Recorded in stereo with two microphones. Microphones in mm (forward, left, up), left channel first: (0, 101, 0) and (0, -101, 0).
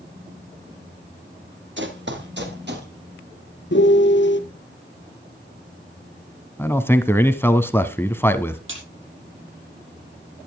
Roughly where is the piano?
Left.